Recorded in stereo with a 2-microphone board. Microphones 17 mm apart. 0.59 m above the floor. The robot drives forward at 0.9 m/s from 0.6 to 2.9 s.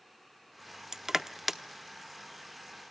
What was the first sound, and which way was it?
Crushing, 30° right (ahead or behind).